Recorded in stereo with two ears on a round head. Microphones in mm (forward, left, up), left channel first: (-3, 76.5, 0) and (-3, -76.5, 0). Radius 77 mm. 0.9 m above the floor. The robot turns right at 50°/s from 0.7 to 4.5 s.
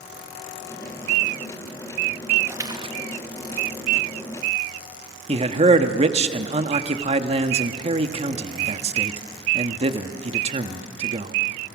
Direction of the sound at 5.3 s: 35° right (ahead or behind).